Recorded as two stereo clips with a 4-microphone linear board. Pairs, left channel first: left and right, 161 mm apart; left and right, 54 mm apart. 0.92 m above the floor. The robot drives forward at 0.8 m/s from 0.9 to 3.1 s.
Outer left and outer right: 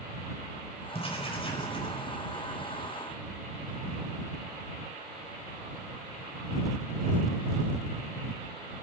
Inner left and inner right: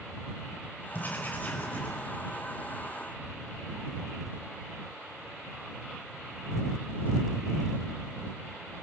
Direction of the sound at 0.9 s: 40° left (ahead or behind).